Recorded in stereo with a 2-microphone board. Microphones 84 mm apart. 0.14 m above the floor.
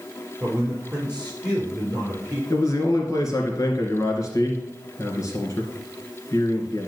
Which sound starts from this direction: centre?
A man speaking, at 0.4 s.